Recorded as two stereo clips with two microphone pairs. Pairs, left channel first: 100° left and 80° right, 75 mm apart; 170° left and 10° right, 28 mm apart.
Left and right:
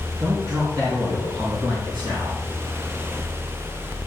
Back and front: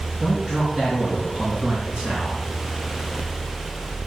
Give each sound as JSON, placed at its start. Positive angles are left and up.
{"t": 0.2, "sound": "a man speaking", "azimuth_deg": -80, "distance_m": 5.0}